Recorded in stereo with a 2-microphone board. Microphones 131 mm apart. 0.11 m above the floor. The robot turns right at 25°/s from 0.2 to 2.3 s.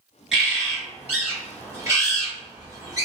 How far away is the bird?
About 1.9 m.